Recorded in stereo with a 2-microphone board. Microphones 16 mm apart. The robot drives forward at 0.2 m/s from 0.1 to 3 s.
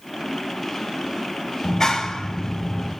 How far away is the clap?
About 4.5 m.